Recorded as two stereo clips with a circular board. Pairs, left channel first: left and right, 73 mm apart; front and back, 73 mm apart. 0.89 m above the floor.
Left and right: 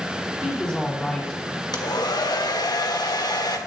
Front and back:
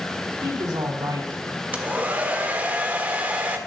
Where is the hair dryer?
110° left, 1.2 m.